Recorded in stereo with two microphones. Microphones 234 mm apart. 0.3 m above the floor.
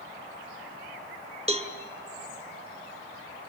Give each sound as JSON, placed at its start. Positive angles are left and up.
{"t": 1.5, "sound": "a cowbell", "side_deg": -25, "distance_m": 1.6}